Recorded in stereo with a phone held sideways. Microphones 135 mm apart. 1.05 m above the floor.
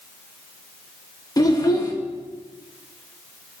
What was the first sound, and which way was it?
A child speaking, 25° left (ahead or behind).